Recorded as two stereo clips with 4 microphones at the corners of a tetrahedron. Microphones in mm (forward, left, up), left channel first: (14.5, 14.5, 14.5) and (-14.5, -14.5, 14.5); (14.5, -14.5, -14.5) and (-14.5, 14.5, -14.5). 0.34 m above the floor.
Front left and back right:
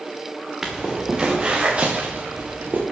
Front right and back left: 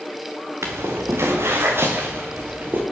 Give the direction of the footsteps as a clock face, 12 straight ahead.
7 o'clock.